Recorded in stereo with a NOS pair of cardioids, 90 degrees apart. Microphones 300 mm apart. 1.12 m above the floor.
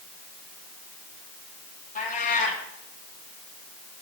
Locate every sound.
1.9 s a cat meowing: 25° left, 8 m